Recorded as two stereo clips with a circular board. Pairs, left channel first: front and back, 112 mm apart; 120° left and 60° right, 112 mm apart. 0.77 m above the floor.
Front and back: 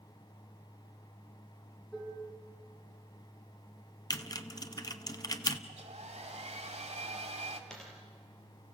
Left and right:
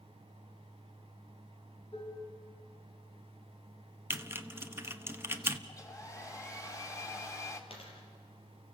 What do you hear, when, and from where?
1.9 s dishes clattering: 85° left, 6 m
4.1 s typing on a keyboard: 10° right, 1.0 m
5.7 s a hair dryer: straight behind, 2.5 m
7.7 s a dropped coin: 85° left, 5 m